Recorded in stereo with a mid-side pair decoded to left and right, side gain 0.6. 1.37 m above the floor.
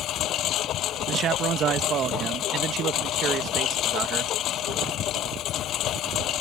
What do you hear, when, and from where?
0.0 s a lawn mower: 60° left
1.1 s a man speaking: 45° right